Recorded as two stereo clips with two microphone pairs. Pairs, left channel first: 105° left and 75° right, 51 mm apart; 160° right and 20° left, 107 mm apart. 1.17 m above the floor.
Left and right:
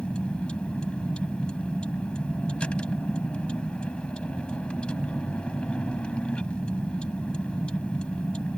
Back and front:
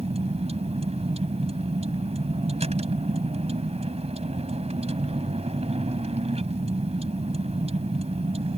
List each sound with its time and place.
0.0 s a vehicle: 35° left